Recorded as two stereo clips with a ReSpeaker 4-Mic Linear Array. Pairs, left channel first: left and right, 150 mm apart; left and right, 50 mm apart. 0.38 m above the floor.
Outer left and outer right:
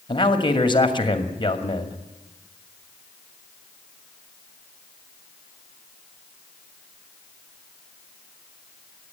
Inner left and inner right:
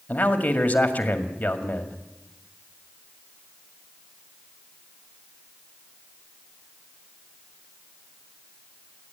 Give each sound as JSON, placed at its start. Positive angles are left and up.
{"t": 0.1, "sound": "a man speaking", "side_deg": 35, "distance_m": 2.0}